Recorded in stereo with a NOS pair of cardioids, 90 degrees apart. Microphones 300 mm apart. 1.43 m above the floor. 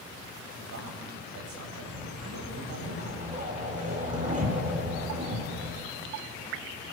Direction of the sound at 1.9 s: 25° right.